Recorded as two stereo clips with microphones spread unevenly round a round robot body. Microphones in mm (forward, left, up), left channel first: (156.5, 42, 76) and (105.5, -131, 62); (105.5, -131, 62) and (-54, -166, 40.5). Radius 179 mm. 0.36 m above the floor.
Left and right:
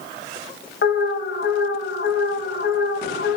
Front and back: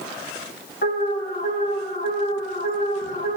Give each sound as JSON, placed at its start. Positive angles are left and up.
{"t": 0.8, "sound": "an alarm", "azimuth_deg": 55, "distance_m": 1.6}